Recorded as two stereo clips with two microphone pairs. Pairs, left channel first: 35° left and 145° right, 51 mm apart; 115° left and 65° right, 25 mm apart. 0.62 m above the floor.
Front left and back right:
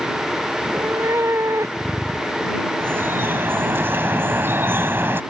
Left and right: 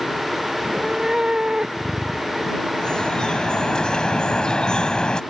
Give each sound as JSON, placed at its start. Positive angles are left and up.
{"t": 0.6, "sound": "a cat meowing", "azimuth_deg": -120}
{"t": 2.8, "sound": "dripping", "azimuth_deg": 175}